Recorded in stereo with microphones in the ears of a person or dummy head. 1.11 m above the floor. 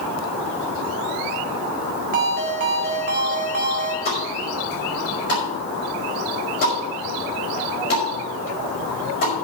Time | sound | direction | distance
2.1 | a ringtone | 40° right (ahead or behind) | 1.5 m
4.0 | a pop | 45° left (ahead or behind) | 5 m